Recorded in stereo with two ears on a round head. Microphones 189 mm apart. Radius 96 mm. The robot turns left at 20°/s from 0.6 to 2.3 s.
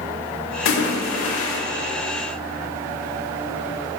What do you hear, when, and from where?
0.7 s a splash: 75° left (ahead or behind), 1.8 m; by 1.6 s 70° left (ahead or behind), 1.8 m